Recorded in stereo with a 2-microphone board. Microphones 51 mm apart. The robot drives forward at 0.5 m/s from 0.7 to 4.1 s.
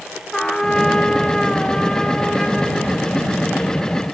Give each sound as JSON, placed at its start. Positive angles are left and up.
{"t": 0.3, "sound": "a trumpet", "side_deg": 15, "distance_m": 1.2}